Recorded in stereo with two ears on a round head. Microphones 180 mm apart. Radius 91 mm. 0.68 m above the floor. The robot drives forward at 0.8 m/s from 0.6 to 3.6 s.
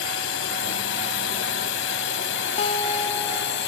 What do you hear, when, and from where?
0.0 s a drone: 75° left (ahead or behind); by 3.7 s 70° left (ahead or behind)
2.6 s a guitar: 30° left (ahead or behind); by 3.7 s 15° left (ahead or behind)